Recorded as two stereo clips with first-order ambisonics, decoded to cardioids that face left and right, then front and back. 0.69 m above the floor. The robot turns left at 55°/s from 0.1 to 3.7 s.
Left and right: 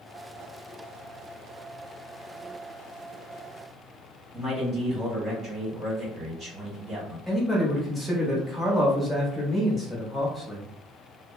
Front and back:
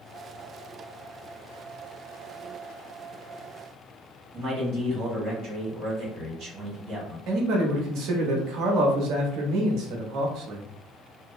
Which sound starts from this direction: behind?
A man speaking, at 7.3 s.